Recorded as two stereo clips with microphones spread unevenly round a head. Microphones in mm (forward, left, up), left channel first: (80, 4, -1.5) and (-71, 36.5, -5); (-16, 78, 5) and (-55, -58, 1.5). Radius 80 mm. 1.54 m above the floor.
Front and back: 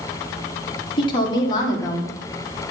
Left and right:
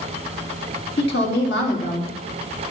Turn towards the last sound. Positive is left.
turn(degrees=55)